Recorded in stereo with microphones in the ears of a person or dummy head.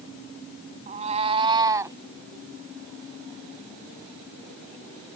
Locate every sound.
0.9 s a cat meowing: 40° right (ahead or behind); by 2.0 s 15° right (ahead or behind)